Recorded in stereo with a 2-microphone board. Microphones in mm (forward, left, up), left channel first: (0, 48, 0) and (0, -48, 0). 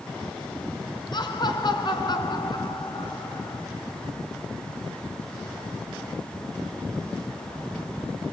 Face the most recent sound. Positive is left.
turn(degrees=50)  # may be behind; listen again after turning